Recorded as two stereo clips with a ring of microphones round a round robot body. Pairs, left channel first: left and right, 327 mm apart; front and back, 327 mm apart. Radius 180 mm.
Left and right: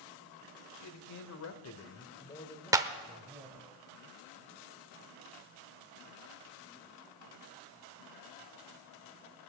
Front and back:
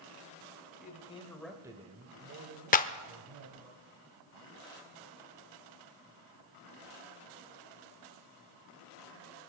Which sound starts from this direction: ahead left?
A man speaking, at 0.8 s.